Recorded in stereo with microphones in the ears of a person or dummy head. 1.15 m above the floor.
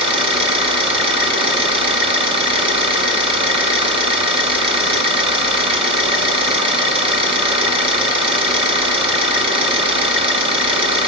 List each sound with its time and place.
0.0 s an engine running: 25° right (ahead or behind), 0.8 m